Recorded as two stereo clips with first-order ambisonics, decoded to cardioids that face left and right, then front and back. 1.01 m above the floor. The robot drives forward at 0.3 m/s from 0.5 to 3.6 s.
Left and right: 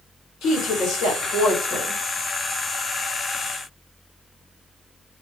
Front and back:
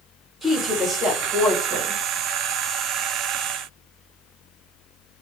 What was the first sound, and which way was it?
A woman speaking, 90° left.